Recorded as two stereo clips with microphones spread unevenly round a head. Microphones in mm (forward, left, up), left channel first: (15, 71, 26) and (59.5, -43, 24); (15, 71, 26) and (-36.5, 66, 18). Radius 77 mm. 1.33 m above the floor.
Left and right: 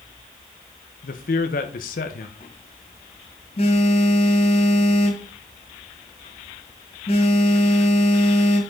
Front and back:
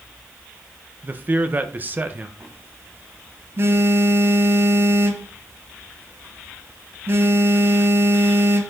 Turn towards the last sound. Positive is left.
turn(degrees=150)